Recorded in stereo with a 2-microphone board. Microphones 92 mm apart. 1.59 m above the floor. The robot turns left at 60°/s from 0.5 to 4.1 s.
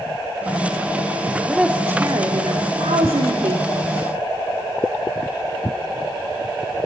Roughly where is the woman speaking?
Ahead.